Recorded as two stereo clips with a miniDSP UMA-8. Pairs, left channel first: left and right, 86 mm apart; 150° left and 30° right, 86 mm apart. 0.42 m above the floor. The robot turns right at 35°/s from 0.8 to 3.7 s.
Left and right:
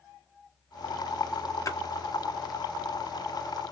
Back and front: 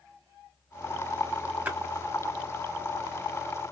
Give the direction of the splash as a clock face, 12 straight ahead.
11 o'clock.